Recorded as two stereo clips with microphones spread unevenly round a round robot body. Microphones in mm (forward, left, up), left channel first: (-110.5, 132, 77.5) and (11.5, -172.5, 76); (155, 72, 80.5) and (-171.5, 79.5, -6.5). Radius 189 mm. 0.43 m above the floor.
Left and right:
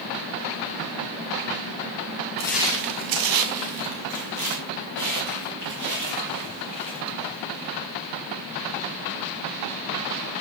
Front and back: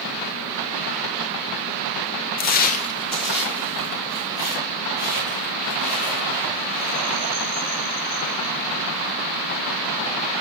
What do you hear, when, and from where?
2.4 s footsteps: 45° left, 0.6 m; by 7.7 s 100° right, 6.5 m